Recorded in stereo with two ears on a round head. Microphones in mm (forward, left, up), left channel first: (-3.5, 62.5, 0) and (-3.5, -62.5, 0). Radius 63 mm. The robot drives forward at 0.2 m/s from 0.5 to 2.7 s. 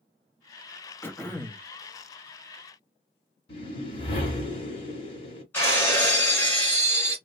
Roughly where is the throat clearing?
Centre.